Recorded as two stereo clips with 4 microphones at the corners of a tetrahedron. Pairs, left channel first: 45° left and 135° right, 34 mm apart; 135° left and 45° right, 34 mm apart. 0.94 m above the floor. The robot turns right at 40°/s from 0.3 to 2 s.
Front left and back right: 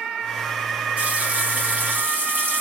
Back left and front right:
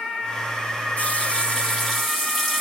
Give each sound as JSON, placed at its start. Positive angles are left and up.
{"t": 1.0, "sound": "a running tap", "azimuth_deg": 180, "distance_m": 1.2}